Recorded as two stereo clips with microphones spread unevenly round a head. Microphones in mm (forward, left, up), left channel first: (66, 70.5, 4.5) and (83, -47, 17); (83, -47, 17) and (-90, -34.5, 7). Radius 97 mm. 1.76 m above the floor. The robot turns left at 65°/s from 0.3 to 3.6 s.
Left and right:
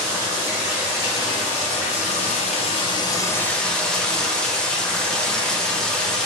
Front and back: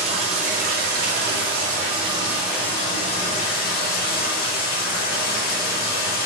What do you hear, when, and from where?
0.0 s running water: 135° right, 0.7 m; by 6.3 s 10° left, 0.7 m